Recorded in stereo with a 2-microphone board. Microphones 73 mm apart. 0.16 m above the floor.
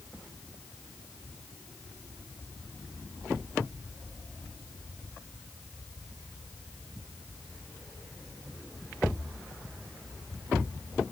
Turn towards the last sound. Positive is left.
No sound to turn to.